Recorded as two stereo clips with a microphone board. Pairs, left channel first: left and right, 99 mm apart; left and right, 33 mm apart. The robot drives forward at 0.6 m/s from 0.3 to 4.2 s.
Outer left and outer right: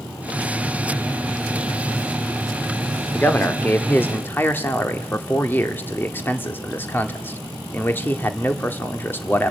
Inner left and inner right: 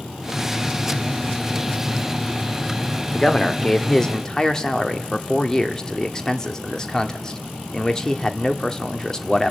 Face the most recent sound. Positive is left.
turn(degrees=20)  # may be behind; listen again after turning